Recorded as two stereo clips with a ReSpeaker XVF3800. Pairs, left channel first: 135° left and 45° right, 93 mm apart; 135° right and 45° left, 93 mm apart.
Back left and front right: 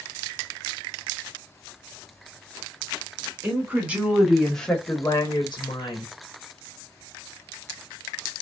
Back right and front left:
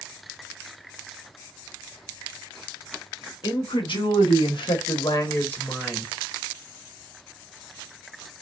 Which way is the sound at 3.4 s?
110° right.